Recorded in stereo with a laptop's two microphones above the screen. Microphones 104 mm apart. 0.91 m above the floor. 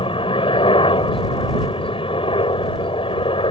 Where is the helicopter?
60° left (ahead or behind).